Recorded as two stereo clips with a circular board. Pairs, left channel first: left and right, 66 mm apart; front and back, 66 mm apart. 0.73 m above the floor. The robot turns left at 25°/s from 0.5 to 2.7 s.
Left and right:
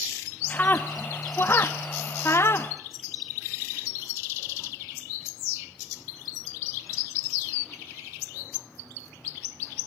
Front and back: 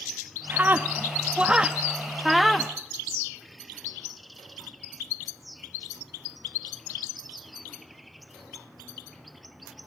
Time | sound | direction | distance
0.5 | a scream | 140° left | 0.9 m